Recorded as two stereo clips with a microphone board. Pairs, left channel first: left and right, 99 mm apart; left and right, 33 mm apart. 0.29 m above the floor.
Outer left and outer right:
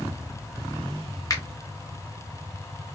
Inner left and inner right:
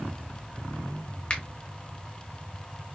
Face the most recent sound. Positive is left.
turn(degrees=35)  # may be behind; listen again after turning